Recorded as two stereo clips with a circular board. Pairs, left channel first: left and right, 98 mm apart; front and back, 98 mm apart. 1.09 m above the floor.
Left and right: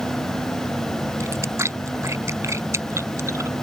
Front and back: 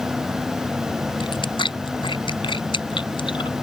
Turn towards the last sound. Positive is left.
turn(degrees=-30)